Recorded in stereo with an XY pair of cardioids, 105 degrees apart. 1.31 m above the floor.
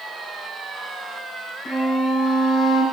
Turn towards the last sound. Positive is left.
turn(degrees=50)